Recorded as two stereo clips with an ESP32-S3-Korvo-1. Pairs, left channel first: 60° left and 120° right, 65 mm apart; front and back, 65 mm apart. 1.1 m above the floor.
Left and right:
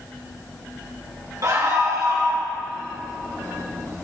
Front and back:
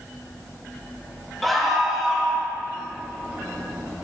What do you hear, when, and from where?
1.4 s a scream: 90° right, 1.8 m; by 2.5 s 100° right, 2.5 m